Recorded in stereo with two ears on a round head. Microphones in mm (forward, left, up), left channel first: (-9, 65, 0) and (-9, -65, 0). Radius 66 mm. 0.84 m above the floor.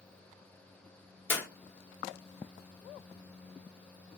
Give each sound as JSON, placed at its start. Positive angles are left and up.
{"t": 1.3, "sound": "a clap", "side_deg": 15, "distance_m": 1.2}